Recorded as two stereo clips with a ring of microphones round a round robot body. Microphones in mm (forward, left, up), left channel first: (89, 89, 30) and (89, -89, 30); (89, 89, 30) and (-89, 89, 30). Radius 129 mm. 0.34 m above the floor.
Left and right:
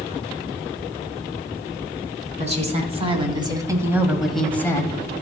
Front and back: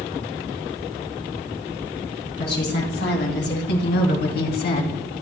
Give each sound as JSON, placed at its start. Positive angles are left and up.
{"t": 2.4, "sound": "a woman speaking", "azimuth_deg": -40, "distance_m": 3.5}